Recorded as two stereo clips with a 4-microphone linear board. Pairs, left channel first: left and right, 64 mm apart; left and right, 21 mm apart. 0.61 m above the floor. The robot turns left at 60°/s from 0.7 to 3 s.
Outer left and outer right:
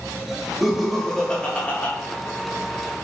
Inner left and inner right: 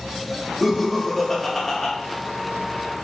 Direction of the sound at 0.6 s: Centre (ahead or behind).